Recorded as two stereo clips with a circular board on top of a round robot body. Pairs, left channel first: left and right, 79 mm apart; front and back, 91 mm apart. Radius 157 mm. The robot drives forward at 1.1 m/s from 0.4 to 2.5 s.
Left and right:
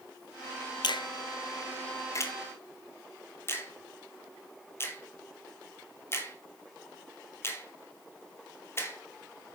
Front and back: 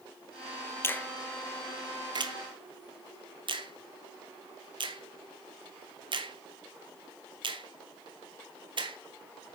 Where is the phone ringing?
I don't hear a phone ringing.